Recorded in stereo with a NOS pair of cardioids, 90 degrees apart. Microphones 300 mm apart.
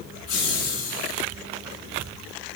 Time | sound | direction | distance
0.3 | laughter | 55° left | 7 m